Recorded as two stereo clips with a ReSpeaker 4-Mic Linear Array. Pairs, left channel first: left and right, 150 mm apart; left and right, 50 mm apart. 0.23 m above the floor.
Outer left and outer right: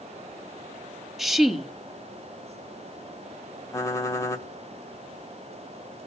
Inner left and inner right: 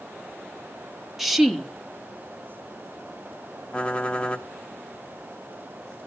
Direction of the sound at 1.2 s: Centre (ahead or behind).